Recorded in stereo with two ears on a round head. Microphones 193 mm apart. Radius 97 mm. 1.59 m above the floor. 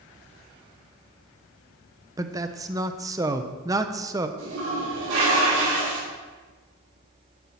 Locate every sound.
2.2 s a man speaking: 15° right (ahead or behind), 0.7 m
4.4 s a toilet flushing: 70° right (ahead or behind), 6 m